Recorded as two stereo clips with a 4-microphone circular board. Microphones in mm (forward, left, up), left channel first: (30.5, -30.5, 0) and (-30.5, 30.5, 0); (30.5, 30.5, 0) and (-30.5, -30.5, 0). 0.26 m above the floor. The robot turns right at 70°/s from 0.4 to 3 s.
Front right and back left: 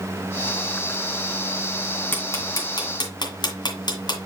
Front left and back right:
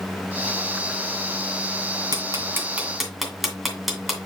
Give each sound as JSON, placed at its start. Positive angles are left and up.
{"t": 2.1, "sound": "ticking", "azimuth_deg": -110, "distance_m": 1.9}